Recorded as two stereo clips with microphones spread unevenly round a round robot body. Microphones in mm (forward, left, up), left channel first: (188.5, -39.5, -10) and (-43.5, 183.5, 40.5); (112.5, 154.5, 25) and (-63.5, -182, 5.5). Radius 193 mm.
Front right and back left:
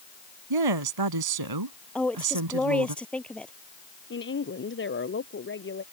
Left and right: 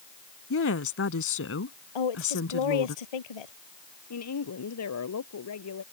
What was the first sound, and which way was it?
A woman speaking, 120° left.